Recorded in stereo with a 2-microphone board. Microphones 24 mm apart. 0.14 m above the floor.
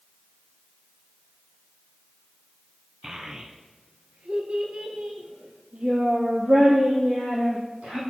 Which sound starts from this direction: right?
A child speaking, at 3.0 s.